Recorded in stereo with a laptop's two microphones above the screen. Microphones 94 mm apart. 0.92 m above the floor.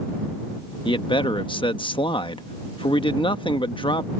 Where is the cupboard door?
I don't hear a cupboard door.